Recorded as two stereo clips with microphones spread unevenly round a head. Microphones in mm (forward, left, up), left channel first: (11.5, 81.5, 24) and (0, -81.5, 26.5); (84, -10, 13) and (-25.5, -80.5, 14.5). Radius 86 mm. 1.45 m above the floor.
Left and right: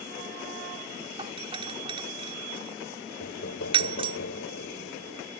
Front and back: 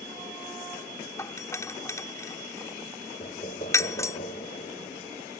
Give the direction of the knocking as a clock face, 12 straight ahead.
9 o'clock.